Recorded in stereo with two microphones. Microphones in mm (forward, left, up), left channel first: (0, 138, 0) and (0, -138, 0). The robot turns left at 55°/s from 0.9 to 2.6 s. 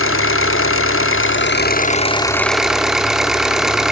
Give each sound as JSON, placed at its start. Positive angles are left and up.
{"t": 0.0, "sound": "an engine running", "azimuth_deg": 90, "distance_m": 0.8}